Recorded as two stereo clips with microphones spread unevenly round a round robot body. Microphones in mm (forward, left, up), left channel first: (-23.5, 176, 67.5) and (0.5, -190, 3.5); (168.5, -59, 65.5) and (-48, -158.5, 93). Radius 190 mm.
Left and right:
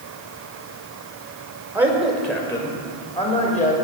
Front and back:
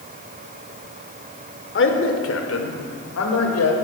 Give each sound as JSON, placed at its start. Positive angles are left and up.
{"t": 1.8, "sound": "a man speaking", "azimuth_deg": -5, "distance_m": 1.8}